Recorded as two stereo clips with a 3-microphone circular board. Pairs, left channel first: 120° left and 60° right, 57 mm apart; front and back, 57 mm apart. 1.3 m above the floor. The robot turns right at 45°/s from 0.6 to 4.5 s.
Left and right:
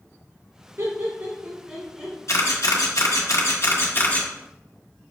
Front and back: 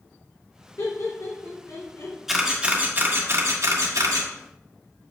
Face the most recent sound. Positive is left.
turn(degrees=-165)